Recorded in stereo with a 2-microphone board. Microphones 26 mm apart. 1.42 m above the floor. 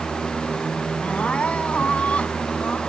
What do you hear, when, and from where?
1.0 s crying: 60° left (ahead or behind)